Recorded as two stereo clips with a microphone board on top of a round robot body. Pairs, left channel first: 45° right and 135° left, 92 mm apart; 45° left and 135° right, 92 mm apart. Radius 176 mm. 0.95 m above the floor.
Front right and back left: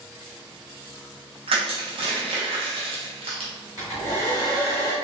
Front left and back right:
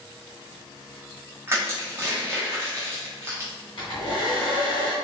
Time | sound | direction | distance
1.5 | crushing | 160° left | 0.7 m
3.8 | a hair dryer | 10° left | 1.1 m